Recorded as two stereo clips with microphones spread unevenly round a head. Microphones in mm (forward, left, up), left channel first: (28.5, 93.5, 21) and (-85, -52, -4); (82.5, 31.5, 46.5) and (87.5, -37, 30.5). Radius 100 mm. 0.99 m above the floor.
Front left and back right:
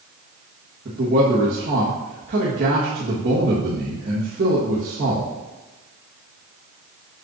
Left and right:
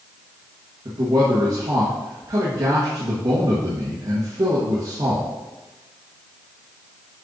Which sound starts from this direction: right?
A man speaking, at 0.8 s.